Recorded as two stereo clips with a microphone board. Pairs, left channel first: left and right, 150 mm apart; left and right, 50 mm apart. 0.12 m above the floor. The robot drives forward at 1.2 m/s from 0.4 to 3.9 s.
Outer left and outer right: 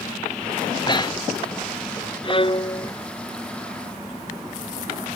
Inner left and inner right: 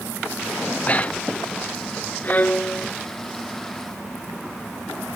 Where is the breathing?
30° left (ahead or behind); by 1.4 s 25° left (ahead or behind).